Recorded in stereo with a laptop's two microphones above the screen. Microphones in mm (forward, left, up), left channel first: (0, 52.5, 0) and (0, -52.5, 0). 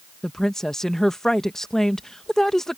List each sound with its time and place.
0.2 s a woman speaking: 5° left (ahead or behind)